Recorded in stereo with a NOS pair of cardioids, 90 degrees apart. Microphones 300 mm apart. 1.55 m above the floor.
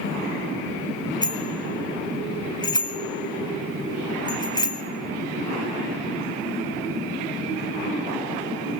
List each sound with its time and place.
1.2 s a bicycle bell: 15° left, 3 m